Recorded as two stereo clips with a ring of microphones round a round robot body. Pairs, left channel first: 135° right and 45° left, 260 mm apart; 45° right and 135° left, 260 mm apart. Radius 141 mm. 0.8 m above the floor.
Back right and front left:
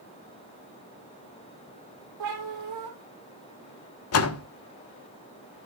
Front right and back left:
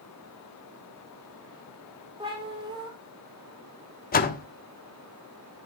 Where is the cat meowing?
65° left, 4 m.